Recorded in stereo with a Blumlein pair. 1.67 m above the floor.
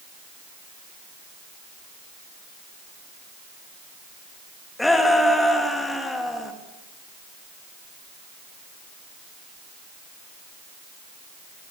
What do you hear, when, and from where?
4.8 s a shout: 5° left, 3.5 m